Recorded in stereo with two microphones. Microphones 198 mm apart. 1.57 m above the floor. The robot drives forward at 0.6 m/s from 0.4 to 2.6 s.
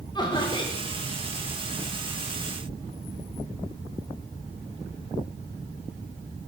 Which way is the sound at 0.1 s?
20° left (ahead or behind).